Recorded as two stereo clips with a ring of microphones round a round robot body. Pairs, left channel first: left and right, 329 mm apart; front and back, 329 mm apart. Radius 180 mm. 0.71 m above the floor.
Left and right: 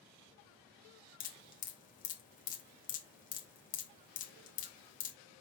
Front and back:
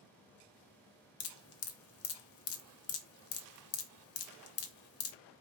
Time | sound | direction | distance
1.2 | dripping | 30° left | 0.6 m